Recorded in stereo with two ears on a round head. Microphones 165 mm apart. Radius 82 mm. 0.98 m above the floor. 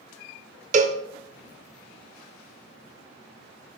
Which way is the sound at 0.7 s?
40° right (ahead or behind).